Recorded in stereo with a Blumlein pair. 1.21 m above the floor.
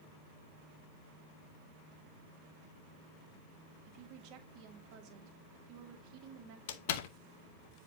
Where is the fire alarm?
I don't hear a fire alarm.